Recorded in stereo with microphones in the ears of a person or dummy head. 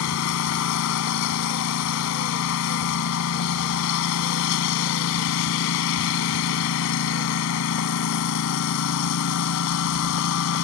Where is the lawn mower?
70° left (ahead or behind).